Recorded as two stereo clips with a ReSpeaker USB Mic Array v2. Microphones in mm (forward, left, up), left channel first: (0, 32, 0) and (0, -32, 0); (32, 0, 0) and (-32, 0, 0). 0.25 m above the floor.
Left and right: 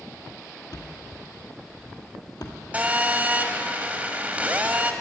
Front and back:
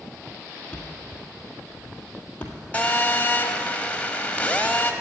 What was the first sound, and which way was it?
A thud, 65° left.